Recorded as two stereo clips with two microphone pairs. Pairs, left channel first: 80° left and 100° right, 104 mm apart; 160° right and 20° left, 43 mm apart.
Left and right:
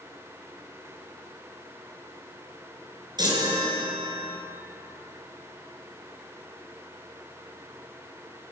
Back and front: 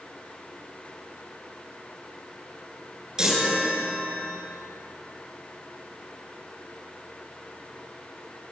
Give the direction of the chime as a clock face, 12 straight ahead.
2 o'clock.